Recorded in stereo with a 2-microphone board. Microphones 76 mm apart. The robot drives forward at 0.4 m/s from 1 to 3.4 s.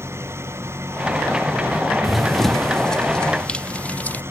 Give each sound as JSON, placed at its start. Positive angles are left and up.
{"t": 0.0, "sound": "an engine running", "side_deg": -35}
{"t": 2.0, "sound": "running footsteps", "side_deg": 0}